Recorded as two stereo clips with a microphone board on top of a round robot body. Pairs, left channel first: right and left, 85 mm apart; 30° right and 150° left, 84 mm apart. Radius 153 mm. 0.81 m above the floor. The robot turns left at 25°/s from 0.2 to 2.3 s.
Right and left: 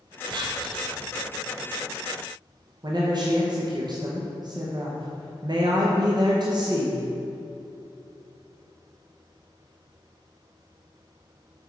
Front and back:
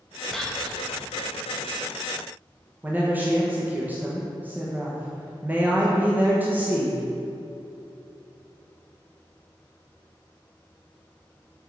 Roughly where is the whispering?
Ahead left.